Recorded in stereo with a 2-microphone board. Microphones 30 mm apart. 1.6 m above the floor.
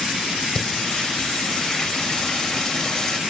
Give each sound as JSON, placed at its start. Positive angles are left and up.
{"t": 0.6, "sound": "singing", "side_deg": 25, "distance_m": 3.5}